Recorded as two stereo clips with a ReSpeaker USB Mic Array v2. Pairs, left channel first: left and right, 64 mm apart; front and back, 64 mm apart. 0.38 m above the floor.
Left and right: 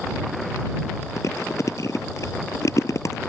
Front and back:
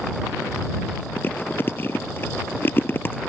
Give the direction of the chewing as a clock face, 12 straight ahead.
10 o'clock.